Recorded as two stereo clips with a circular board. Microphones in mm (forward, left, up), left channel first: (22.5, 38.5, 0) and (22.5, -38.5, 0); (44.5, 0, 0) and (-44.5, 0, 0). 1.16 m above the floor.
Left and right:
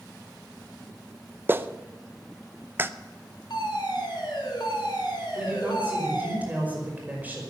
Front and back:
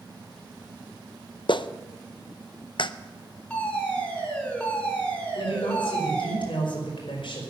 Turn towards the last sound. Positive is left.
turn(degrees=-20)